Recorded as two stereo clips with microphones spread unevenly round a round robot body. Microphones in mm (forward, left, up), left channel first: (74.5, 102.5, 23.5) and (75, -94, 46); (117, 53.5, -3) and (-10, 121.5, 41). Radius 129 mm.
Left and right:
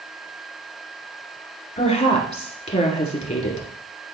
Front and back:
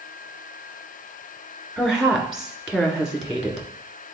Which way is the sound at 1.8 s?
50° left.